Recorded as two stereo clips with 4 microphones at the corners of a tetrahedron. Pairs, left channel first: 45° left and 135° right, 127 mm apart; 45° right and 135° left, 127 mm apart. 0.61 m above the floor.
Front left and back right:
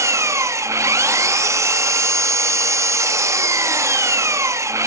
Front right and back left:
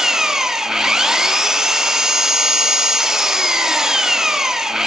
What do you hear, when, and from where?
0.0 s an engine running: 145° right, 0.8 m